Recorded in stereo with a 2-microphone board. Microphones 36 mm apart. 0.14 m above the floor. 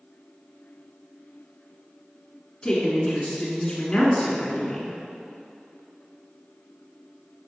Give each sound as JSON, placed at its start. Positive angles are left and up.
{"t": 2.6, "sound": "a woman speaking", "side_deg": 20, "distance_m": 1.7}